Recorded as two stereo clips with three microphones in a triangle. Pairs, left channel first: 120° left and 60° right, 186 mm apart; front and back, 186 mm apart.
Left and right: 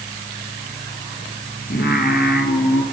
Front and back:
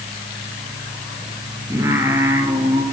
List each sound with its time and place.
1.7 s singing: 105° left, 3.5 m